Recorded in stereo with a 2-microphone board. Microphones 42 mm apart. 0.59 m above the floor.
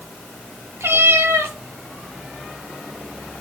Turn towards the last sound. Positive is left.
turn(degrees=-80)